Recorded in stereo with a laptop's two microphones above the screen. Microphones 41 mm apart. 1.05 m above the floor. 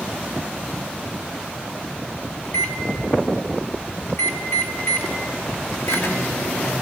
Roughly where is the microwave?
Left.